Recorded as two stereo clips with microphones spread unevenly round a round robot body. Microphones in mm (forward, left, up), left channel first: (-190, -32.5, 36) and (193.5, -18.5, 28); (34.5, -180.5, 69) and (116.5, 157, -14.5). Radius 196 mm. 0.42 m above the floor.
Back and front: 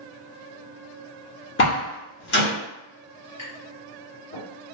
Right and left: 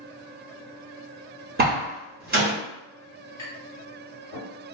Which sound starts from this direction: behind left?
A door slam, at 1.6 s.